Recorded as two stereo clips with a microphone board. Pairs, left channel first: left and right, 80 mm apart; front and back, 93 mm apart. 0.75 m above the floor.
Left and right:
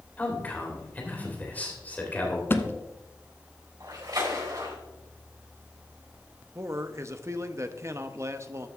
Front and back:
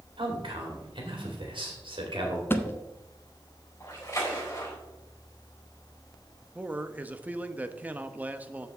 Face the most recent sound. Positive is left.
turn(degrees=-115)